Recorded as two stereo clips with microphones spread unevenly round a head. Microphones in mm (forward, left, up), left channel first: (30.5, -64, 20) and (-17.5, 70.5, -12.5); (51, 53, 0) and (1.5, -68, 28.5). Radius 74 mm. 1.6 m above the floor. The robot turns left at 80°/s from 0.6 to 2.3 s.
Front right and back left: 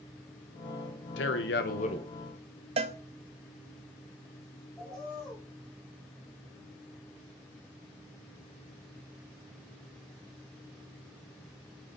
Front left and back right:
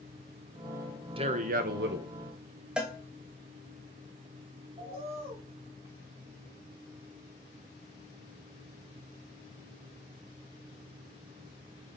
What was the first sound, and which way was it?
A man speaking, 60° right.